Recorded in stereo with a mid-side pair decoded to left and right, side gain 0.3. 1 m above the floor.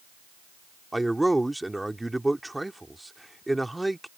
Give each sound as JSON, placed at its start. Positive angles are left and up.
{"t": 0.9, "sound": "a man speaking", "azimuth_deg": -15}